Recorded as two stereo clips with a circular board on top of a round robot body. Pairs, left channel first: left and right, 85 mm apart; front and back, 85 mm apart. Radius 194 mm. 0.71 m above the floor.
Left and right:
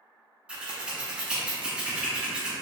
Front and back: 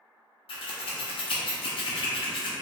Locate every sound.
0.5 s scissors: 10° right, 0.5 m